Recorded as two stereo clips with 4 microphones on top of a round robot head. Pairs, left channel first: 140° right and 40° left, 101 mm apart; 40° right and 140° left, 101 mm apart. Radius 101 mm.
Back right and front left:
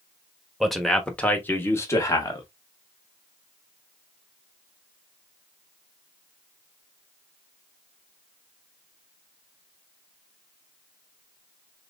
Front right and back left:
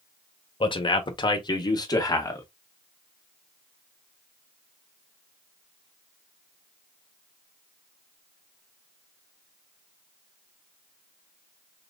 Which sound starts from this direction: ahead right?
A man speaking, at 0.6 s.